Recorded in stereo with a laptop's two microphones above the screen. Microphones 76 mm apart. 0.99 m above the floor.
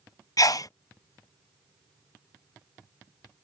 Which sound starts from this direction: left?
A sneeze, at 0.4 s.